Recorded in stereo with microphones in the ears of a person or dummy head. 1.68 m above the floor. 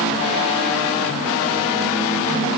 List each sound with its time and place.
Only background noise.